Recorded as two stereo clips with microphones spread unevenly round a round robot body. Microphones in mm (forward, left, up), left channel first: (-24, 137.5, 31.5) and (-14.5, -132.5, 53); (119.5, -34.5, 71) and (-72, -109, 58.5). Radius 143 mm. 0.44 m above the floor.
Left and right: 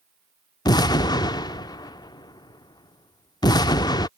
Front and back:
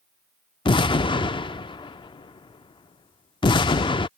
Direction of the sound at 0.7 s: 55° left.